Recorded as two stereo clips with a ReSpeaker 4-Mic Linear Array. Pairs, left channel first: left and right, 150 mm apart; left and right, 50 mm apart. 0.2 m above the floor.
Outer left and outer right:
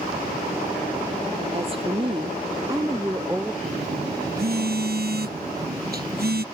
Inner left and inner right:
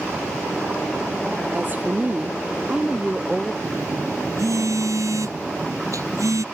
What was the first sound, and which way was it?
A woman speaking, 40° right (ahead or behind).